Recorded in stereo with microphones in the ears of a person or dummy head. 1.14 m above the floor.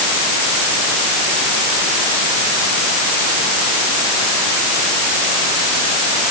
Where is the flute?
I don't hear a flute.